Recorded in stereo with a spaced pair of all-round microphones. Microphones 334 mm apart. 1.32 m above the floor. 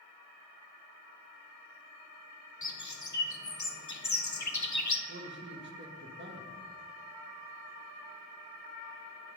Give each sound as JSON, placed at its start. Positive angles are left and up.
{"t": 2.6, "sound": "a bird", "side_deg": 60, "distance_m": 0.7}
{"t": 5.1, "sound": "a man speaking", "side_deg": -35, "distance_m": 1.4}